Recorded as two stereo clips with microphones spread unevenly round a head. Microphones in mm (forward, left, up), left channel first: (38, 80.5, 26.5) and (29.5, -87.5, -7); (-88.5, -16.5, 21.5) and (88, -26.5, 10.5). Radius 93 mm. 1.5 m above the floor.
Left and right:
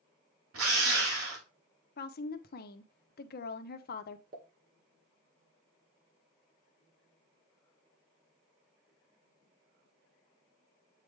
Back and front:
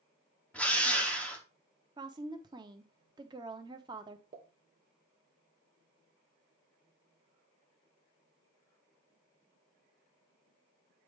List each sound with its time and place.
0.5 s a drill: 100° right, 2.5 m
2.0 s a woman speaking: 65° left, 0.9 m
4.3 s a pop: 55° right, 1.8 m